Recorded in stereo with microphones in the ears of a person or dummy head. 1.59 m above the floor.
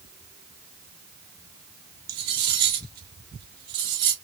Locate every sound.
2.1 s cutlery clinking: 25° right (ahead or behind), 0.7 m